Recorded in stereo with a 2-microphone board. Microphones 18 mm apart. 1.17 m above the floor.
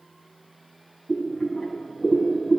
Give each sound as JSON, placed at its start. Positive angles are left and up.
{"t": 1.1, "sound": "boiling", "side_deg": 60, "distance_m": 3.0}